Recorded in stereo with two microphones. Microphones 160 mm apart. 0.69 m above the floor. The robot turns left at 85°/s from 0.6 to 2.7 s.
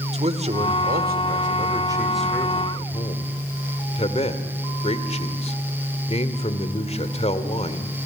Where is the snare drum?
I don't hear a snare drum.